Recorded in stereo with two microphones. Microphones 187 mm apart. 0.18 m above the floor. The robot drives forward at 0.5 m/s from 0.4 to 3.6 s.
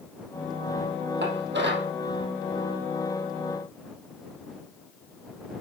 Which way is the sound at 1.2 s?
70° right (ahead or behind).